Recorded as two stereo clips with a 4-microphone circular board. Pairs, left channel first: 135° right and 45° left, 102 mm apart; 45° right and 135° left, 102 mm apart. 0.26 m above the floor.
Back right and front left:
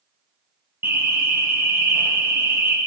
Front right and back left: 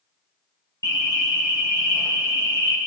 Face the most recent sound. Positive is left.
turn(degrees=-15)